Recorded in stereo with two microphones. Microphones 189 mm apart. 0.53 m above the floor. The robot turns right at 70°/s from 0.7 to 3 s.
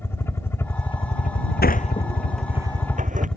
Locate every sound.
0.0 s a helicopter: 15° left; by 3.4 s 175° left
1.6 s a sliding door: 55° left (ahead or behind); by 3.3 s 40° right (ahead or behind)